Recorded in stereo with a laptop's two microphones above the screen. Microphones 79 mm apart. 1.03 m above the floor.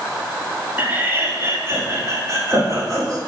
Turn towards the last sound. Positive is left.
turn(degrees=-45)  # may be behind; listen again after turning